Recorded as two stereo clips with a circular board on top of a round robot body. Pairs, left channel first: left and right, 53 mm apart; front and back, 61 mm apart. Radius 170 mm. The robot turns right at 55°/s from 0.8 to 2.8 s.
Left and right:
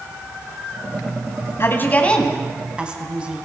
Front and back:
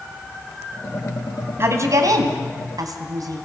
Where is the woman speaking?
130° left, 3 m; by 3.5 s 165° right, 3 m.